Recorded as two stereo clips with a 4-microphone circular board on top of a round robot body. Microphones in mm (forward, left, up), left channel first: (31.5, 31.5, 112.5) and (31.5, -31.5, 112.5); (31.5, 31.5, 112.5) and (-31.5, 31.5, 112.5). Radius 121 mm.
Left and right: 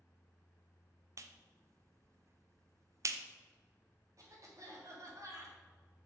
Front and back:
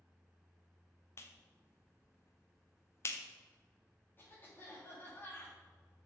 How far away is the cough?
About 2.5 m.